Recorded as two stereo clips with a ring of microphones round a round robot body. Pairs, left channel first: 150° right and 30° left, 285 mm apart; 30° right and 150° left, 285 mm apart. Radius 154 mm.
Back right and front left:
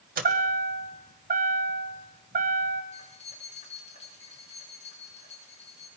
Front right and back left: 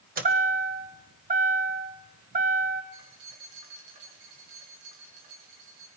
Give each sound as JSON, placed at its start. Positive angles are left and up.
{"t": 0.2, "sound": "a chime", "azimuth_deg": 90, "distance_m": 2.0}
{"t": 2.9, "sound": "keys jangling", "azimuth_deg": 140, "distance_m": 6.5}